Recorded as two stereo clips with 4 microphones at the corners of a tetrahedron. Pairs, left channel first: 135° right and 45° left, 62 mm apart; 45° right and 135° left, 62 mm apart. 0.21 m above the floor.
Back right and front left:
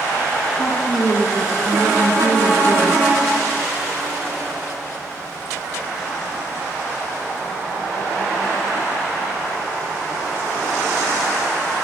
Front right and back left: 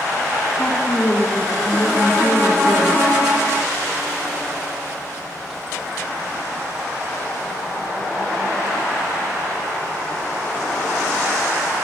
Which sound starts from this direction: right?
A woman speaking, at 0.6 s.